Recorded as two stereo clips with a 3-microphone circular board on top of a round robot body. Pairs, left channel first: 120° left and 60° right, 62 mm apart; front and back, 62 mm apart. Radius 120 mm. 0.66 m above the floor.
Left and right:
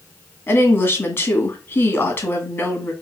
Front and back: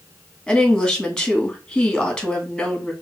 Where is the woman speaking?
75° left, 2.0 m.